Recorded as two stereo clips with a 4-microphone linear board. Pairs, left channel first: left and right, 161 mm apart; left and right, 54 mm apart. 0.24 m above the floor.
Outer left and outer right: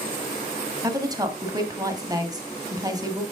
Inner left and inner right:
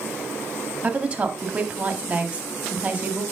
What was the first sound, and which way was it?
A woman speaking, 25° right (ahead or behind).